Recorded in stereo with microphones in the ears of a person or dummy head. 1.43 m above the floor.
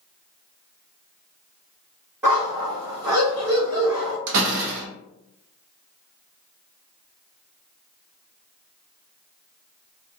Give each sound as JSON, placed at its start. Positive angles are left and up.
{"t": 2.2, "sound": "a dog barking", "side_deg": -10, "distance_m": 1.4}
{"t": 4.3, "sound": "a door slam", "side_deg": -65, "distance_m": 0.7}